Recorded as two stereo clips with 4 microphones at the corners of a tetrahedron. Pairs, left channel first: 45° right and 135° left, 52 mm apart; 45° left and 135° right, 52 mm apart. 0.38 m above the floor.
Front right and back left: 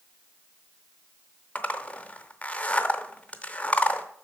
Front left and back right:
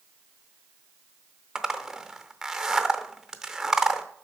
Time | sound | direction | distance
1.6 | a zipper | 60° right | 0.6 m